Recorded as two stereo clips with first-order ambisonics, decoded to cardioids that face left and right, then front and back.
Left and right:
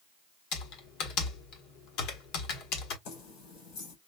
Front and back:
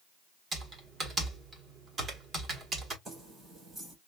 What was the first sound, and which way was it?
Typing on a keyboard, 110° left.